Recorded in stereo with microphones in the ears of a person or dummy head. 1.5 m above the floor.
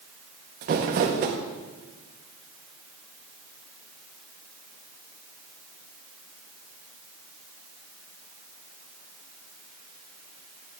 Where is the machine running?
No machine running in this recording.